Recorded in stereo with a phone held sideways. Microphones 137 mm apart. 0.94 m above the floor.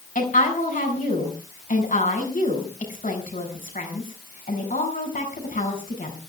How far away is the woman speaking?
About 7 m.